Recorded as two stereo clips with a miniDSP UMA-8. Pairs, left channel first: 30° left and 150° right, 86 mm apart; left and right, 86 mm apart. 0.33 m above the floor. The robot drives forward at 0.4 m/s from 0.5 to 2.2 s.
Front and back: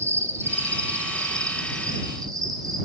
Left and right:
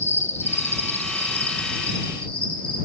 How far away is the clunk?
I don't hear a clunk.